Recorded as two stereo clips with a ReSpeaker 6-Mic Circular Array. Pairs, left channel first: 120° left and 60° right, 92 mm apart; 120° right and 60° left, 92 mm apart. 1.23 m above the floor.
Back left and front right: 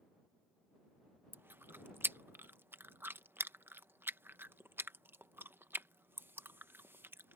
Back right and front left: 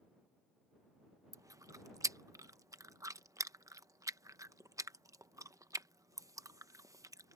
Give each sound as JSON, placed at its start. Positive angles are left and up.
{"t": 1.3, "sound": "chewing", "azimuth_deg": 5}